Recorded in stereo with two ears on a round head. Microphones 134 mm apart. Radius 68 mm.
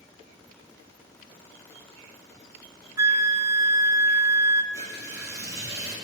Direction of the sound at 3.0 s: 20° right (ahead or behind).